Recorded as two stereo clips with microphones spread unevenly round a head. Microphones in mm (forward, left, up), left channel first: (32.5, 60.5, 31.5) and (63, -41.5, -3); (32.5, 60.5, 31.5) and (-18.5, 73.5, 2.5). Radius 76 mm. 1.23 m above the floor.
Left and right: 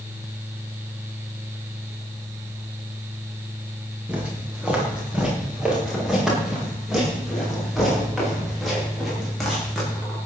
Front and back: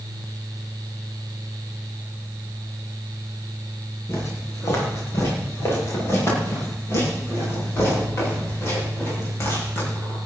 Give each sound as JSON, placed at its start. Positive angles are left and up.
{"t": 4.1, "sound": "footsteps", "azimuth_deg": 10, "distance_m": 7.5}